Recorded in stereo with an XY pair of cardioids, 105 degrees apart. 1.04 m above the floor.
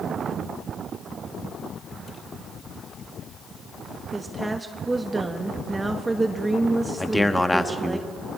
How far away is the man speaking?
About 1.3 m.